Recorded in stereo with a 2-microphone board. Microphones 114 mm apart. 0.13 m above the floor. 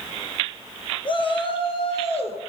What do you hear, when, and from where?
1.1 s a shout: 45° left (ahead or behind), 2 m; by 2.5 s 60° left (ahead or behind), 3 m